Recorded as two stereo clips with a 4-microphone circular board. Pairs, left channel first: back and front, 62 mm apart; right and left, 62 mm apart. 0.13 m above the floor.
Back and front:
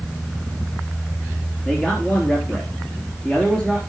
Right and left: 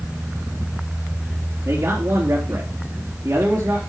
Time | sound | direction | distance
1.6 | a man speaking | 110° left | 3.5 m